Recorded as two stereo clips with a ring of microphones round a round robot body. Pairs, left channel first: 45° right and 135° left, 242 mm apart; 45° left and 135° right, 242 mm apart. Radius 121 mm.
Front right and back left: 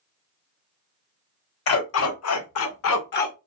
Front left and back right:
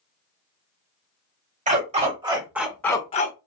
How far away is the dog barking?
About 1.0 m.